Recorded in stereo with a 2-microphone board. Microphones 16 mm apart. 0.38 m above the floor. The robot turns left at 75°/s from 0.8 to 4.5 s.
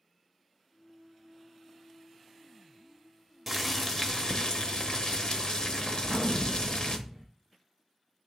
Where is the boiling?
Straight behind, 0.8 m; by 7.0 s 100° left, 0.8 m.